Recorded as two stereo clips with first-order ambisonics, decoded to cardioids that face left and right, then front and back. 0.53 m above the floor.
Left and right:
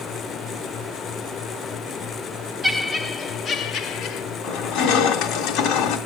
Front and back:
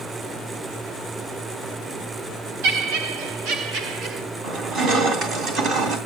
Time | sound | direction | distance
2.6 | laughter | 175° right | 1.3 m
4.4 | crushing | 130° left | 2 m